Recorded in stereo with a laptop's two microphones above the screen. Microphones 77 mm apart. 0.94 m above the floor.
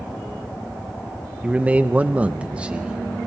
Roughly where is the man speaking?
Centre.